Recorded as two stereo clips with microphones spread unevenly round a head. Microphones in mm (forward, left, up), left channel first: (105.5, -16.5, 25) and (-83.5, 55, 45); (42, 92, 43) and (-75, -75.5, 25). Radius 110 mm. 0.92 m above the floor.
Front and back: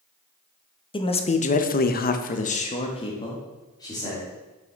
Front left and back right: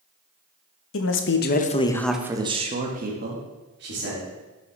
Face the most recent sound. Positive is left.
turn(degrees=-95)